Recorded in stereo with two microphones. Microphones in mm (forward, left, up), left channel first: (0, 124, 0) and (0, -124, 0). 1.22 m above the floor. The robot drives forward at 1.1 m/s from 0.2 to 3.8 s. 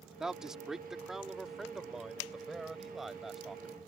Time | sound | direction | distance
0.2 | a man speaking | 5° right (ahead or behind) | ?